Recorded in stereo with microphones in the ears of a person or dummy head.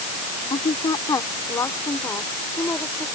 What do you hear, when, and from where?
0.5 s a woman speaking: 30° left (ahead or behind); by 3.1 s 10° left (ahead or behind)